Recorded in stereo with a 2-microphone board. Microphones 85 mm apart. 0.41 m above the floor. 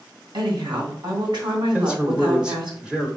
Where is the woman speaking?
70° right (ahead or behind), 2.5 m.